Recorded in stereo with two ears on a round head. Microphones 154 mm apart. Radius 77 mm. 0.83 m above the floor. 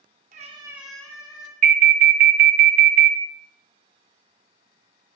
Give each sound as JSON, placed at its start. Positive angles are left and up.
{"t": 0.3, "sound": "a cat meowing", "side_deg": -50, "distance_m": 0.6}
{"t": 1.6, "sound": "an alarm", "side_deg": -55, "distance_m": 0.6}